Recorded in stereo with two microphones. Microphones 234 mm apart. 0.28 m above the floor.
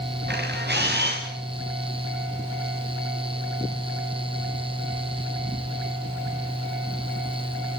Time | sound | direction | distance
0.3 | a camera shutter | 45° right (ahead or behind) | 7 m